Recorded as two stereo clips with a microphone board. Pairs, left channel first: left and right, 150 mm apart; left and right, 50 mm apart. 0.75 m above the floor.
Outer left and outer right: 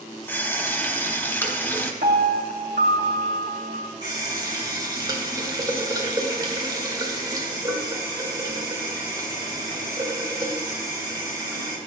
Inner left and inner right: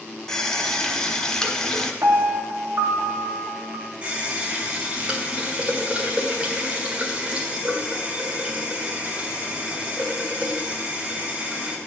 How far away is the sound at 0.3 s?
About 1.0 m.